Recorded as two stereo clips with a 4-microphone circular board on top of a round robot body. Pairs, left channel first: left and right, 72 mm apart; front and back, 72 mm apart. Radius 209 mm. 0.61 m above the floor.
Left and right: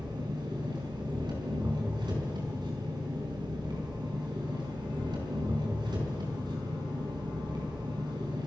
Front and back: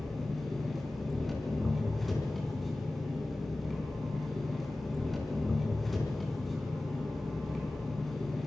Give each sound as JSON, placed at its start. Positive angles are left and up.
{"t": 0.0, "sound": "an engine running", "azimuth_deg": -90, "distance_m": 5.0}